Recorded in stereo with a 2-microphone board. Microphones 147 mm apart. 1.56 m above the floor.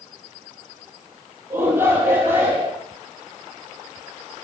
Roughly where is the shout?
Centre.